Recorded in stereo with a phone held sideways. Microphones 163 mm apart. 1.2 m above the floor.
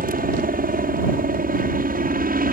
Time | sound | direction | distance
0.0 | a helicopter | 60° right (ahead or behind) | ?